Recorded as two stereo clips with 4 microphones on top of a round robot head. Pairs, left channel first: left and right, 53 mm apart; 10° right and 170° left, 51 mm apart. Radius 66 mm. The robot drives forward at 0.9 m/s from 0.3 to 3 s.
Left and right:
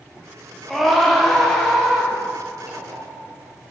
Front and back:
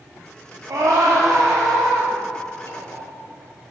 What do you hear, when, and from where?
0.7 s a scream: straight behind, 1.5 m
2.6 s knocking: 40° right, 1.6 m; by 3.3 s 50° right, 1.3 m